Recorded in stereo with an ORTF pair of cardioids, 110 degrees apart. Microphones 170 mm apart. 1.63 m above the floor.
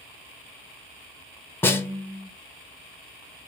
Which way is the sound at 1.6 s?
15° left.